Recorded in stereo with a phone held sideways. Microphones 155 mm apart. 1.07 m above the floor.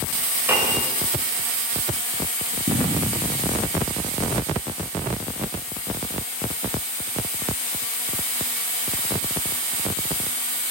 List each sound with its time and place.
0.5 s a piano: 15° right (ahead or behind), 6.5 m
2.7 s an explosion: 65° right (ahead or behind), 9.5 m